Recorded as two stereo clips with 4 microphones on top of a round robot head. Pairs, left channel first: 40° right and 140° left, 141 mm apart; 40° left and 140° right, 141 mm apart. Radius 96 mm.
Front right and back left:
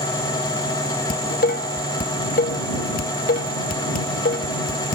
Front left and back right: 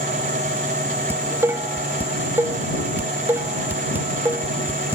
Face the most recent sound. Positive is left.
turn(degrees=-65)